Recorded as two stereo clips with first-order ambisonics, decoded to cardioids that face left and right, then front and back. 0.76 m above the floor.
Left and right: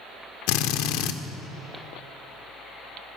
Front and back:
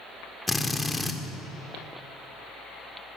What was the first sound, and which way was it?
A drill, 85° left.